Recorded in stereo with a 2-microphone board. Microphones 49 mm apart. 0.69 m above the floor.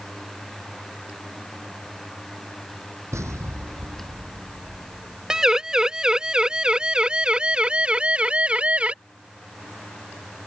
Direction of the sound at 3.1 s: 85° right.